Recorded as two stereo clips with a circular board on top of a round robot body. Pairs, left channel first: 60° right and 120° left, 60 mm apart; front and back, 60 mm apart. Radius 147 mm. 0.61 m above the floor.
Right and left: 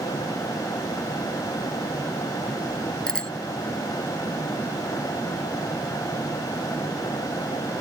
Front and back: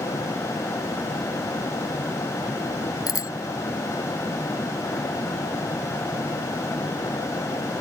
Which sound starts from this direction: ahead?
A bicycle bell, at 3.1 s.